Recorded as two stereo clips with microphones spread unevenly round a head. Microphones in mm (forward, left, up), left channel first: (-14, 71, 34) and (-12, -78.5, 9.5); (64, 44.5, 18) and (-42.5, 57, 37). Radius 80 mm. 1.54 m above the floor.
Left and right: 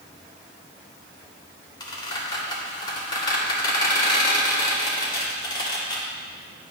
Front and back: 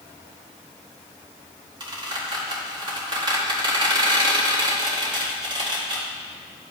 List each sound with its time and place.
1.8 s a squeak: 145° left, 2 m